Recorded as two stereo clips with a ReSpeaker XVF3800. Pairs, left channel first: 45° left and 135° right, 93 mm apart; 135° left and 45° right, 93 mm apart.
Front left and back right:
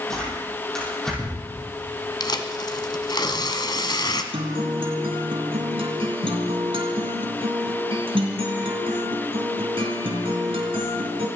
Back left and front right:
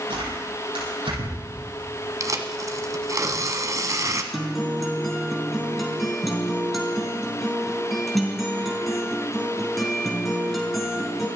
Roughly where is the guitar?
Behind right.